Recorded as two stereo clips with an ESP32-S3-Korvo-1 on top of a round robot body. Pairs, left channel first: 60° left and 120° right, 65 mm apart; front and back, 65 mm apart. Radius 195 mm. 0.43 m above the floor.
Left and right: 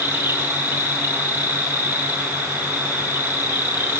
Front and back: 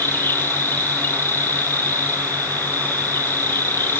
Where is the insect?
60° right, 2 m.